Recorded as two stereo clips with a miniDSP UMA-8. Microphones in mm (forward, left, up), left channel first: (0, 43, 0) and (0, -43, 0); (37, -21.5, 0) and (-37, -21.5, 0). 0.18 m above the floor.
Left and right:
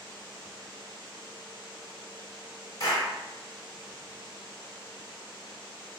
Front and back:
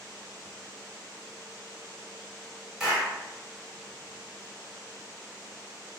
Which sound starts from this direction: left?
A clap, at 2.8 s.